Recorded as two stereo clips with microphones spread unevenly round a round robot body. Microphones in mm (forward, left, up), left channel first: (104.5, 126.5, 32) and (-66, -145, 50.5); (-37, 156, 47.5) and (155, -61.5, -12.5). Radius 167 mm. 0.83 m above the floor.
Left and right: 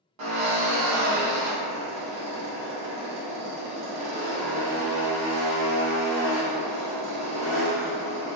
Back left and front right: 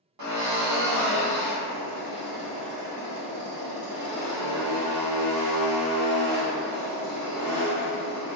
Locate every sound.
0.2 s a drill: 80° right, 1.0 m